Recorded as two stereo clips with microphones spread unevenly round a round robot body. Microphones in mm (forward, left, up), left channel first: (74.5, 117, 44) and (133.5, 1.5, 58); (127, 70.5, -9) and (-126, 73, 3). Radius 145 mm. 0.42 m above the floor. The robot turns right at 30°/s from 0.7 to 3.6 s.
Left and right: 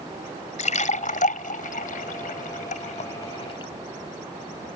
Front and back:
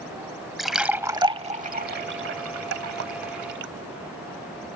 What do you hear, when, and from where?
0.6 s a splash: 90° left; by 3.7 s 175° left